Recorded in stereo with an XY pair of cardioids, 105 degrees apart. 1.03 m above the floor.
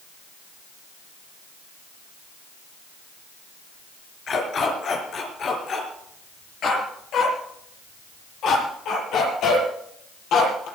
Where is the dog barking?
55° left, 5 m; by 10.7 s 70° left, 8.5 m.